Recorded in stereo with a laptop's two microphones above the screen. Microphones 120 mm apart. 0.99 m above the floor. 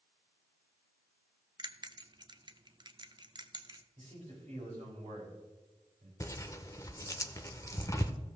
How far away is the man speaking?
About 4.5 m.